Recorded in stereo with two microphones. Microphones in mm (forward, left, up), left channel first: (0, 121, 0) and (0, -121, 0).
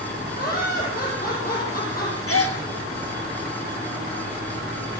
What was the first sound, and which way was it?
Laughter, 40° left (ahead or behind).